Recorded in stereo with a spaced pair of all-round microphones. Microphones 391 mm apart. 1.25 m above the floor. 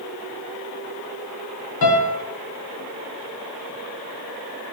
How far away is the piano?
About 0.6 m.